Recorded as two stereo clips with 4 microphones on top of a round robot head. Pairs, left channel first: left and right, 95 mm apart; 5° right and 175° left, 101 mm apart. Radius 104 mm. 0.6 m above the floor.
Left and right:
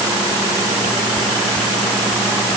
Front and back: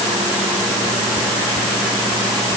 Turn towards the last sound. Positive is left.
No sound to turn to.